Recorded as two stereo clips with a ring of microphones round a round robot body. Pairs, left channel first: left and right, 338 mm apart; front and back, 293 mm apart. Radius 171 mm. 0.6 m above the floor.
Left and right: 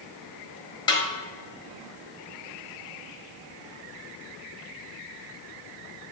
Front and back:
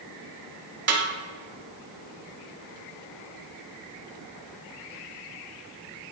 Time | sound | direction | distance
0.9 | a snare drum | 165° left | 1.4 m